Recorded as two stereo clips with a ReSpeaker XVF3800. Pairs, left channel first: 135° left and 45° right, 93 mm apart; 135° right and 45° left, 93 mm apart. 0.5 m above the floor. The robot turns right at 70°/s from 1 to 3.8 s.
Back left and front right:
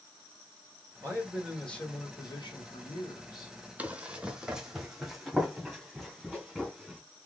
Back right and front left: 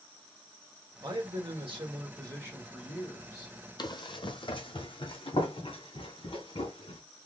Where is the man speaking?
10° left, 1.9 m; by 3.5 s 175° right, 1.9 m.